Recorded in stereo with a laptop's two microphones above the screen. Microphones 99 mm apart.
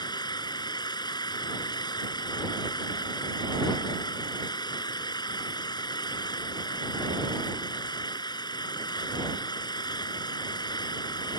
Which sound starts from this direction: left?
An engine running, at 0.0 s.